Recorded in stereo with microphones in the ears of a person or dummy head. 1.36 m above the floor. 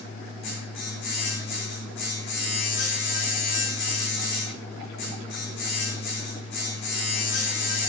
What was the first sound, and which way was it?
A machine running, 65° left (ahead or behind).